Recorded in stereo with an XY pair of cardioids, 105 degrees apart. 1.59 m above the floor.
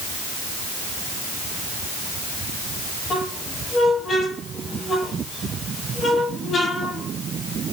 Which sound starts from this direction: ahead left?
A squeak, at 3.1 s.